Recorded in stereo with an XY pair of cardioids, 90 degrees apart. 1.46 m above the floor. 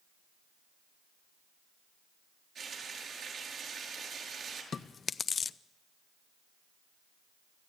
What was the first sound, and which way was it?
Frying, 65° right.